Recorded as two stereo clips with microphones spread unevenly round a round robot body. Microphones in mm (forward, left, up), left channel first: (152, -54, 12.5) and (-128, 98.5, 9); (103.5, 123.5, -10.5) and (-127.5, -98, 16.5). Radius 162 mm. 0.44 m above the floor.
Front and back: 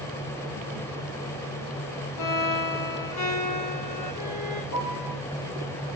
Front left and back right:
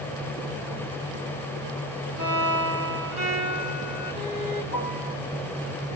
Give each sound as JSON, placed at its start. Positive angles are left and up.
{"t": 2.2, "sound": "a violin", "azimuth_deg": -60, "distance_m": 9.5}
{"t": 4.7, "sound": "a piano", "azimuth_deg": -75, "distance_m": 8.0}